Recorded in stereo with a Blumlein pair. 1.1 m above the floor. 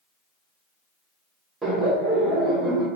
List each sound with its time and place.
1.6 s laughter: 10° right, 0.9 m